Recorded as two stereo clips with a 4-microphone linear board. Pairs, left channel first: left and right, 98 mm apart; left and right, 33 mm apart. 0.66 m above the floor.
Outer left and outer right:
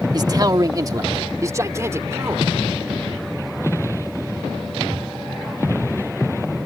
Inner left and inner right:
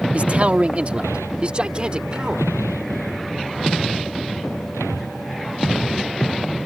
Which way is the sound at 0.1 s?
40° right (ahead or behind).